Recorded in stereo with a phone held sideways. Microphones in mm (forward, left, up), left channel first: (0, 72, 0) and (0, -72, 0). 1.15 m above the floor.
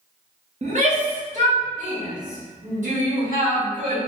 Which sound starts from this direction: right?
A shout, at 0.6 s.